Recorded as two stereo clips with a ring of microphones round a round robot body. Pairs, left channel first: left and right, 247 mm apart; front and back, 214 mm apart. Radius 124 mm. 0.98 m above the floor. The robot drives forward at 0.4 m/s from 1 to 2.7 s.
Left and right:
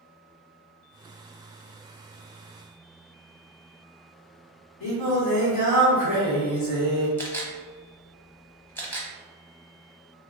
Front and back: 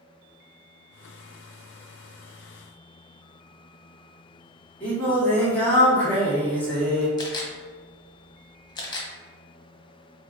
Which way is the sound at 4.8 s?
85° left.